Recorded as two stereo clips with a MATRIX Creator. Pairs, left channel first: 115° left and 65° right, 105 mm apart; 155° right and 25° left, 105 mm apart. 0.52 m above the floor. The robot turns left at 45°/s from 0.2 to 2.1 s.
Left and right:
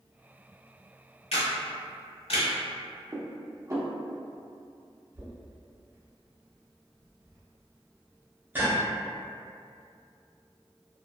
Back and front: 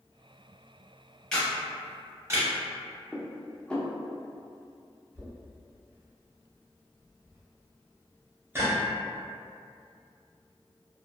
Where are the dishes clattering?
85° right, 0.6 m.